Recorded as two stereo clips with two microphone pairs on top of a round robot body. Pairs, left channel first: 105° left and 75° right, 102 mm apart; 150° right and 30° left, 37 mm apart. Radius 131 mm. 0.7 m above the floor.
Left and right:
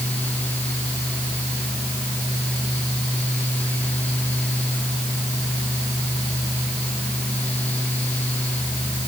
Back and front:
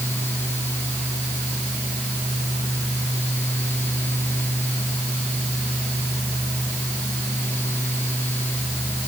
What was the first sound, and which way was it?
Only background noise.